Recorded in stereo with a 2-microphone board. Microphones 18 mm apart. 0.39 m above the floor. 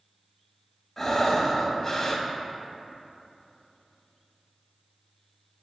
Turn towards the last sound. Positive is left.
turn(degrees=10)  # may be behind; listen again after turning